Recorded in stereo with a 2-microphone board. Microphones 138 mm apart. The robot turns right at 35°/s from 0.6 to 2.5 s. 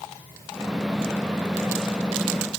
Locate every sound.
Only background noise.